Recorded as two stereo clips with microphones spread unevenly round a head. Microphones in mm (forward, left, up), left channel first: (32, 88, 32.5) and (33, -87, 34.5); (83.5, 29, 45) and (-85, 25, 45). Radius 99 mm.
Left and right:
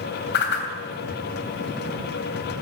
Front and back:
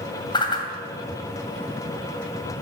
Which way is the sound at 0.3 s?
65° left.